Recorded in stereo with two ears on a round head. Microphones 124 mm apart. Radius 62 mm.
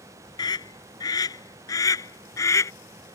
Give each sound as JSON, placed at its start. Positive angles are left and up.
{"t": 0.4, "sound": "a scream", "side_deg": 30}